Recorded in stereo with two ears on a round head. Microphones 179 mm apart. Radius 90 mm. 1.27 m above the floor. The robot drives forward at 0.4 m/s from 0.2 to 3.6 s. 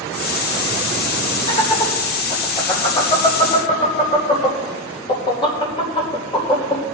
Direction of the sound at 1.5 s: 35° left (ahead or behind).